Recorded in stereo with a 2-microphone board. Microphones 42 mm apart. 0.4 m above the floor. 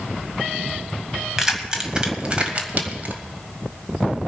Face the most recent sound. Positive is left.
turn(degrees=-45)  # may be behind; listen again after turning